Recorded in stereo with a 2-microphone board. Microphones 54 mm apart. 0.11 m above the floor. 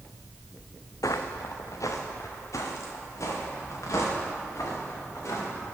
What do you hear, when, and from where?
1.0 s footsteps: 85° left, 0.5 m; by 5.5 s 60° left (ahead or behind), 3.5 m